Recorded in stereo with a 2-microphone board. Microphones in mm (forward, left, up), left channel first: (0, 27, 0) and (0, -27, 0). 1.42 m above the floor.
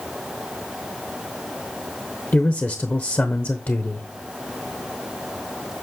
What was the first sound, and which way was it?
A man speaking, 40° left (ahead or behind).